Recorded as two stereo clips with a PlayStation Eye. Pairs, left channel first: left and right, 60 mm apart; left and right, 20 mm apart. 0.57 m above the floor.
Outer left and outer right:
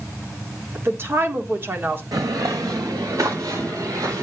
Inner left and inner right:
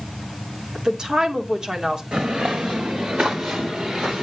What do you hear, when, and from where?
0.8 s a woman speaking: 40° right (ahead or behind), 1.6 m
2.1 s footsteps: 75° right (ahead or behind), 2 m; by 4.2 s 60° right (ahead or behind), 3.5 m